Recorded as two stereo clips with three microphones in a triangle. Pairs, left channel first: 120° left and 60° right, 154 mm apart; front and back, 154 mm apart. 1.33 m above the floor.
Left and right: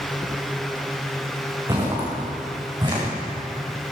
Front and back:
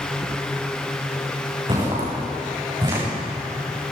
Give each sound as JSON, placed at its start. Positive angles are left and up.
{"t": 1.7, "sound": "footsteps", "azimuth_deg": -125, "distance_m": 6.0}